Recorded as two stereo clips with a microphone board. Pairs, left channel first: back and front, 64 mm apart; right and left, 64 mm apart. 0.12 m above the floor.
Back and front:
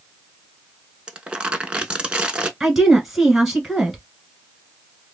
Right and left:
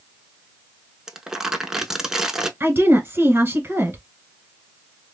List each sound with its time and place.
1.1 s crumpling: 30° left, 0.5 m
2.6 s a woman speaking: 85° left, 1.4 m